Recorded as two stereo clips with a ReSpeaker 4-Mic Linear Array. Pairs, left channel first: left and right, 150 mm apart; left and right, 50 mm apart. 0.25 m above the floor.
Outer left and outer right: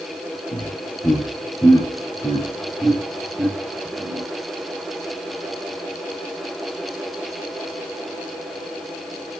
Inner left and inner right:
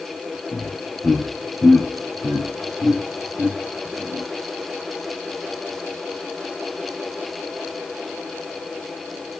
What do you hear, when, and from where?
0.5 s laughter: 35° left (ahead or behind), 3.5 m; by 4.2 s 30° right (ahead or behind), 1.8 m